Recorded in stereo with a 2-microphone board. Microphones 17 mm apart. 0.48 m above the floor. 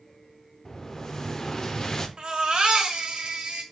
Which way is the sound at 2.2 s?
60° right (ahead or behind).